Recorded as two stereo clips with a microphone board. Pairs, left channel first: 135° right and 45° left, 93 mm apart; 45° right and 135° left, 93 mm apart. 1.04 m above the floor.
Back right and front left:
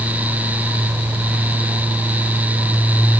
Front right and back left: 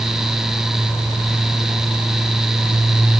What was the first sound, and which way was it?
Only background noise.